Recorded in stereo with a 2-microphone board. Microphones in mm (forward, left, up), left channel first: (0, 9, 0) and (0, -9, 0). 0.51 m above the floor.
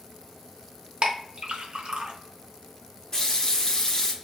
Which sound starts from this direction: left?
A running tap, at 3.1 s.